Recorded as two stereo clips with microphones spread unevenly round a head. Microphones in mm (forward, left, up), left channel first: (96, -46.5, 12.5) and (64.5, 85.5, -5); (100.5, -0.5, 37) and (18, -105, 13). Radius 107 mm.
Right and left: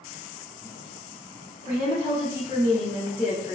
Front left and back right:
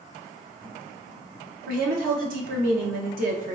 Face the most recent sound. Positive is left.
turn(degrees=-145)